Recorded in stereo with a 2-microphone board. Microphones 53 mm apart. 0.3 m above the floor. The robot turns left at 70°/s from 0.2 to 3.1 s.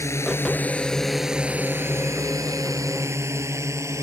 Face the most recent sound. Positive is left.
turn(degrees=-60)  # may be behind; listen again after turning